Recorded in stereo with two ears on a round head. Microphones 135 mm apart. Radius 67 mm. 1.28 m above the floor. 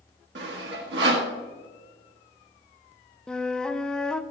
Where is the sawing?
85° right, 1.8 m.